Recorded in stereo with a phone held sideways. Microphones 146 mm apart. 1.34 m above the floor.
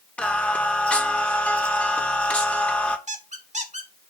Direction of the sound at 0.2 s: 10° left (ahead or behind).